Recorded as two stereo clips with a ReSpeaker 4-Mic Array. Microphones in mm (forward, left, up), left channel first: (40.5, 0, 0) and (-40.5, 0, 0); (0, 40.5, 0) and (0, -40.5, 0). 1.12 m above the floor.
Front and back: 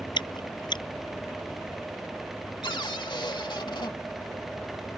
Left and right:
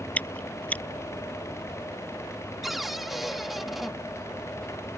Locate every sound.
0.2 s chewing: 20° left
2.6 s a cupboard door: straight ahead